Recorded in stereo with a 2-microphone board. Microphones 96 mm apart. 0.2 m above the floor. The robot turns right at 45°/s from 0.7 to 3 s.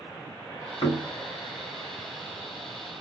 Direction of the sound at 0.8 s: 50° left (ahead or behind).